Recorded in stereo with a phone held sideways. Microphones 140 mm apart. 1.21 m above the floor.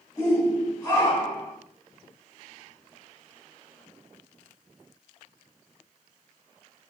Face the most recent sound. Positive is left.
turn(degrees=20)  # may be behind; listen again after turning